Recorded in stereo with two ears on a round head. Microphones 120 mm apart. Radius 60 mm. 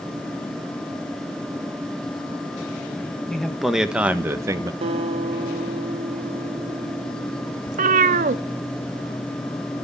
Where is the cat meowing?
60° right (ahead or behind), 0.8 m.